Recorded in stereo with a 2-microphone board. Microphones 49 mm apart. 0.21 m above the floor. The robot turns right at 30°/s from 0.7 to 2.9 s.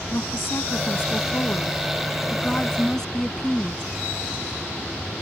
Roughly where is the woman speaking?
Left.